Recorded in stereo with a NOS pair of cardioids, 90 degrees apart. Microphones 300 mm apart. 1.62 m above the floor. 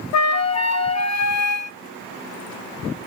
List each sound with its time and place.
0.1 s a flute: 60° left, 0.7 m